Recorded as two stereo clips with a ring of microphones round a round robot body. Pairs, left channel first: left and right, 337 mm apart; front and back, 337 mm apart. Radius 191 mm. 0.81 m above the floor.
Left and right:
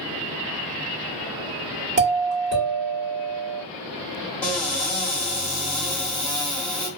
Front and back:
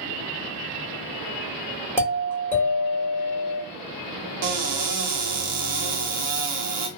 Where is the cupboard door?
175° left, 1.0 m.